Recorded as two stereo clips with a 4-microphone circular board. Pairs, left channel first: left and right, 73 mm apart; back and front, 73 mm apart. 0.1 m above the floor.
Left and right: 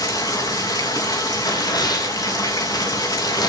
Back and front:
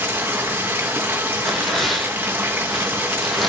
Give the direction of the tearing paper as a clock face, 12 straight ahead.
9 o'clock.